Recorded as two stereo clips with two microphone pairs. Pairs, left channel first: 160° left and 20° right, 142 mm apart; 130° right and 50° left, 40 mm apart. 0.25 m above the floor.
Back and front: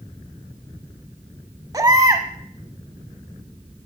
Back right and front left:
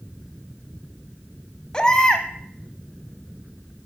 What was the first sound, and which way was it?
A baby crying, 70° right.